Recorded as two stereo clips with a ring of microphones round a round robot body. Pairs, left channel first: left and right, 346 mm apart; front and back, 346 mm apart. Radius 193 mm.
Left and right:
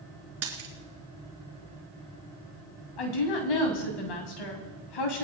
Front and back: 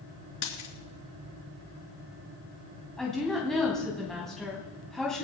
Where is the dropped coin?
40° right, 3 m.